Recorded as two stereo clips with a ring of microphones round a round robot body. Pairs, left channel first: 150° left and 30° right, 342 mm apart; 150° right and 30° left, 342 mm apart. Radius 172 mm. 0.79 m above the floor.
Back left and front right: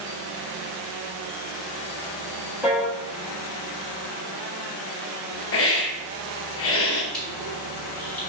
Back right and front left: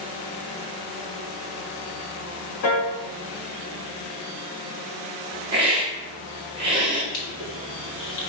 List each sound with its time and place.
2.6 s a piano: 115° right, 1.4 m
5.5 s a hiss: 105° left, 1.0 m
7.1 s crushing: 120° right, 2.0 m